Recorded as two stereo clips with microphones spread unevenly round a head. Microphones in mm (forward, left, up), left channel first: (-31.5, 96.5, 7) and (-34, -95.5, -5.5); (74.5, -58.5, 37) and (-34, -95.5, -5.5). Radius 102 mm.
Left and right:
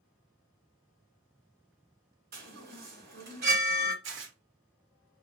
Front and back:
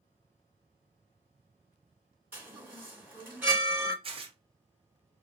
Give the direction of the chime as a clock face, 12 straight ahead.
2 o'clock.